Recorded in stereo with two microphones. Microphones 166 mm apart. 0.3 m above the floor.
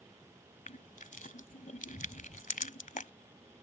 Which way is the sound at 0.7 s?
50° left (ahead or behind).